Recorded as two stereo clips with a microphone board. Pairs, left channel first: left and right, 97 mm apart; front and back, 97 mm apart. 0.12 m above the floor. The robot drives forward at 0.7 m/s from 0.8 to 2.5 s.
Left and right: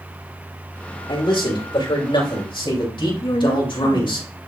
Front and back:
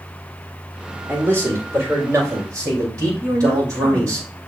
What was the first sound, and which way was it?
A man speaking, 115° left.